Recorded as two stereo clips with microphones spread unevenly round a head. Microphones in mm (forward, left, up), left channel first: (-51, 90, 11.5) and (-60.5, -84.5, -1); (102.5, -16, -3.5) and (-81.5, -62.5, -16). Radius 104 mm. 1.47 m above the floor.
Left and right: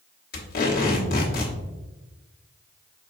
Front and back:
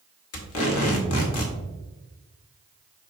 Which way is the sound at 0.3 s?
40° left.